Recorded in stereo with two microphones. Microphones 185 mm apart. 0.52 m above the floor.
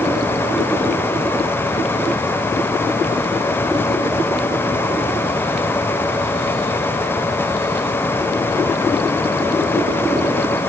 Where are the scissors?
I don't hear scissors.